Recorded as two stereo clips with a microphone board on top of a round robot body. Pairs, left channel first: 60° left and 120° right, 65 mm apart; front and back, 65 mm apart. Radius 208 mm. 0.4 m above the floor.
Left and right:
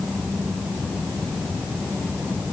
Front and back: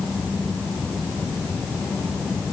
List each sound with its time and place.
Only background noise.